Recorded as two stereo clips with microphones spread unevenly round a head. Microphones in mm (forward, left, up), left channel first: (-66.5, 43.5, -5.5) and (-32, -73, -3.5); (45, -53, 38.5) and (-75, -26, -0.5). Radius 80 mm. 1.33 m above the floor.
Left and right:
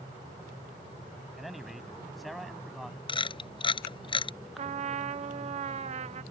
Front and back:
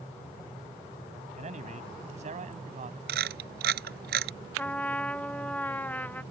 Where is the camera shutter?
150° left.